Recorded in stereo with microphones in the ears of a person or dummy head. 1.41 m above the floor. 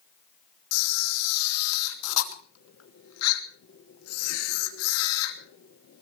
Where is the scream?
I don't hear a scream.